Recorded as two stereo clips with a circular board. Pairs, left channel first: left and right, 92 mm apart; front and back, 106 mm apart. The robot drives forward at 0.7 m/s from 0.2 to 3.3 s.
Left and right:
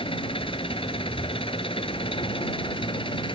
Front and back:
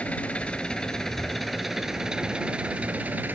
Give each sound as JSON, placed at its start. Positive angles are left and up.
{"t": 0.0, "sound": "an engine running", "azimuth_deg": 80}